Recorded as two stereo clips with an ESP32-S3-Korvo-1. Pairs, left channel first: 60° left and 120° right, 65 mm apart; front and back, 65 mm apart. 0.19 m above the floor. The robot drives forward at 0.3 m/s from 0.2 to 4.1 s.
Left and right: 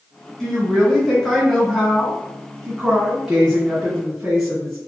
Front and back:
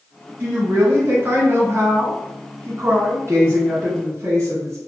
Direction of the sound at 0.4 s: 140° left.